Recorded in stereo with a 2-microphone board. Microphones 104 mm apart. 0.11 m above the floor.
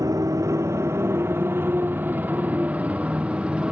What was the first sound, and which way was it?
A motorcycle, 35° right (ahead or behind).